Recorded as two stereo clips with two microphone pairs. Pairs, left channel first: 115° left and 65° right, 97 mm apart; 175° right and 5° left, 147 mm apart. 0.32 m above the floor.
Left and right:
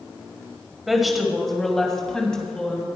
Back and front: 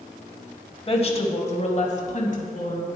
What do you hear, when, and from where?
0.9 s a woman speaking: 150° right, 1.7 m; by 2.9 s 165° right, 2.5 m